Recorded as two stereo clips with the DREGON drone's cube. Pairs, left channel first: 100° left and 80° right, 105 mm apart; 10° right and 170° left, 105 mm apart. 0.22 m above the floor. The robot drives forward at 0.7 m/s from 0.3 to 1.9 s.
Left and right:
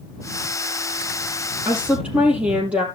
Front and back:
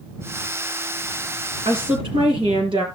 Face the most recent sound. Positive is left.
turn(degrees=-160)